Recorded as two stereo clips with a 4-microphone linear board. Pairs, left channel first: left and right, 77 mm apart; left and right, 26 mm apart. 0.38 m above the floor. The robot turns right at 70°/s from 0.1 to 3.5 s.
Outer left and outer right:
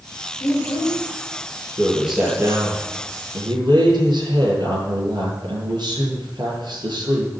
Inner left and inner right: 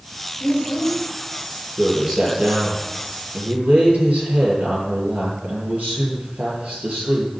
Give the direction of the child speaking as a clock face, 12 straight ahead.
8 o'clock.